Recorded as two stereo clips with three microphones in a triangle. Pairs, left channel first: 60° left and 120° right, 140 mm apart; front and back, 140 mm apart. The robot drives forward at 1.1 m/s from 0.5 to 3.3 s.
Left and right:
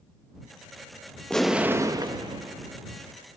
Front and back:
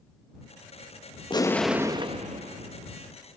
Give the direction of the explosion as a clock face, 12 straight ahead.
1 o'clock.